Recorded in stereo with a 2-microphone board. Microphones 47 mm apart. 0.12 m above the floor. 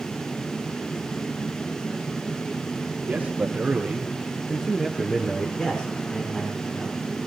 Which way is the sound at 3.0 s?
40° right (ahead or behind).